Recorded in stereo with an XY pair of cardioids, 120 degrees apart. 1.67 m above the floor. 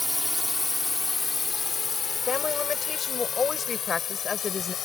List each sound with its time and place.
0.0 s a drone: straight ahead; by 4.8 s 50° left
2.3 s a woman speaking: 30° left